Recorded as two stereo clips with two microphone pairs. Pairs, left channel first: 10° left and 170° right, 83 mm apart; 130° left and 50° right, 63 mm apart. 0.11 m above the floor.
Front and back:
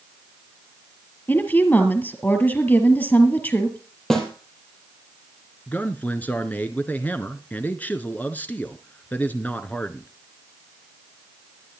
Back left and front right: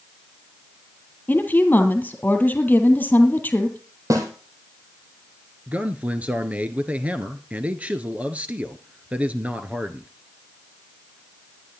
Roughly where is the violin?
I don't hear a violin.